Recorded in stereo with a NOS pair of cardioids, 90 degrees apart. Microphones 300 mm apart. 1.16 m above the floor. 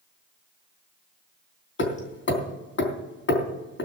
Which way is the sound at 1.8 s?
40° left.